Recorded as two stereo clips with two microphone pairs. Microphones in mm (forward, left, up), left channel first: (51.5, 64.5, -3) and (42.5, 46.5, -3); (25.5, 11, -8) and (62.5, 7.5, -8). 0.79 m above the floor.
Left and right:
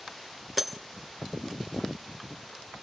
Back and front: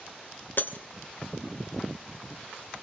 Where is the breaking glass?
150° left, 1.8 m.